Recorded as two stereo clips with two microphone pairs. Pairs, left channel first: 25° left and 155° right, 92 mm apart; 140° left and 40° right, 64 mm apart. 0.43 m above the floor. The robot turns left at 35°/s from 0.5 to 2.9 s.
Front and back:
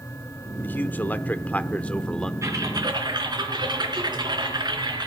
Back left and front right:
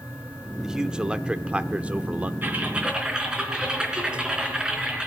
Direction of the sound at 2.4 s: 100° right.